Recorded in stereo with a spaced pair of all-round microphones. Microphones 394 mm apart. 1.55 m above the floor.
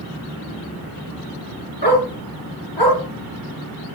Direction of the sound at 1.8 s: 80° left.